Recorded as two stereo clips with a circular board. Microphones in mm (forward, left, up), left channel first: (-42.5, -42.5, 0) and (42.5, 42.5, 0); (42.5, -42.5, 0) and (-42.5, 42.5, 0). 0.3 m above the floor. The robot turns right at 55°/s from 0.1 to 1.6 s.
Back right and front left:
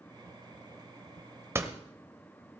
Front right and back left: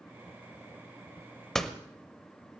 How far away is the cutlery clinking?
No cutlery clinking in this recording.